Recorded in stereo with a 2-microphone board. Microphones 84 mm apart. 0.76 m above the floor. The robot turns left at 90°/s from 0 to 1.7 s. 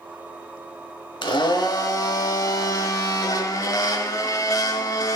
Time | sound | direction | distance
1.2 | a blender | 90° left | 1.1 m